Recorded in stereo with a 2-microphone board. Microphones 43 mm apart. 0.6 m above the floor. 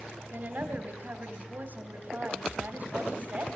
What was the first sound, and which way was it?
A woman speaking, 45° right (ahead or behind).